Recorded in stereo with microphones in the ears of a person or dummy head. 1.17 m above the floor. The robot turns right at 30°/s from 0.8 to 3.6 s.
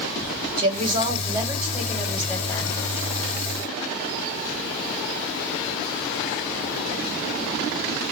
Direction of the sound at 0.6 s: 30° right.